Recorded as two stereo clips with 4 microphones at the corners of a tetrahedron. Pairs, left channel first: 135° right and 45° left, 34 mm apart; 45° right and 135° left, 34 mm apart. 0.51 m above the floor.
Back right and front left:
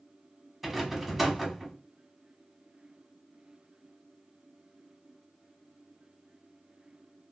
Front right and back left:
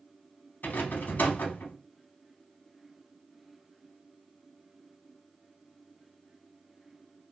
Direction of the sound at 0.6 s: 40° right.